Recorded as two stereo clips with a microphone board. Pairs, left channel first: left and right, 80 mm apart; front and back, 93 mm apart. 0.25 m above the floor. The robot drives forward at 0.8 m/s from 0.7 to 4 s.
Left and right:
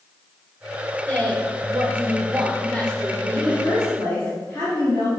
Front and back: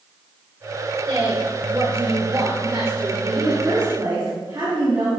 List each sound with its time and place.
1.1 s a woman speaking: 160° left, 3.5 m; by 4.3 s 170° left, 5.5 m
3.4 s a woman speaking: 145° left, 3.5 m; by 5.1 s 150° left, 4 m